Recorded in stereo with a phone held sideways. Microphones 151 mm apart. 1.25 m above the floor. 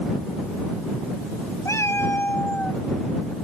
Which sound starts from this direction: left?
A cat meowing, at 1.6 s.